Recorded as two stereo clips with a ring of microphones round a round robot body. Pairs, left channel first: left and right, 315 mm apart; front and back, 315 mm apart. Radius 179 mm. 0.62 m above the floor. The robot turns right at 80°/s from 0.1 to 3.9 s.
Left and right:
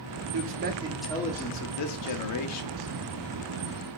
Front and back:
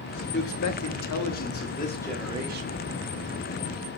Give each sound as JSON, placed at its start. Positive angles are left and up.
{"t": 0.3, "sound": "a man speaking", "azimuth_deg": -55, "distance_m": 1.2}